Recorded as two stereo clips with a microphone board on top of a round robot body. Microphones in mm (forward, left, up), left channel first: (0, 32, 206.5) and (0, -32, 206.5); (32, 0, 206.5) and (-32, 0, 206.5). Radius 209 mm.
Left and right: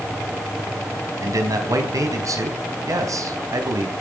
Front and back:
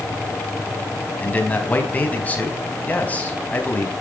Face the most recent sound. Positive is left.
turn(degrees=-65)